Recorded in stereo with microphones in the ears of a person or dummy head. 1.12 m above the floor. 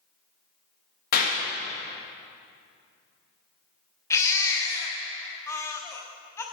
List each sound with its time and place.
1.1 s a clap: 45° left (ahead or behind), 1.7 m
4.1 s a baby crying: 10° left (ahead or behind), 0.9 m